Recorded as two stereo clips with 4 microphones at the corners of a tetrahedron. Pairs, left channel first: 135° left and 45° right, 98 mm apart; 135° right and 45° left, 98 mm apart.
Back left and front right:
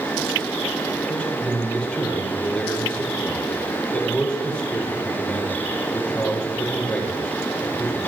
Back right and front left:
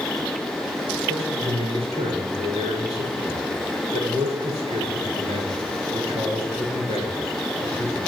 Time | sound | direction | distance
1.1 | a man speaking | 55° left | 6 m